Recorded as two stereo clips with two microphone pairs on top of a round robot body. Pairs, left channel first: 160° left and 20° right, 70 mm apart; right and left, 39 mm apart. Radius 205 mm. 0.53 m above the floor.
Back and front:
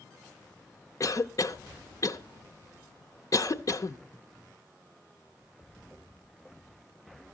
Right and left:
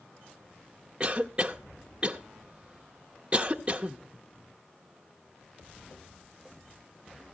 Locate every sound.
1.0 s a cough: 155° left, 0.8 m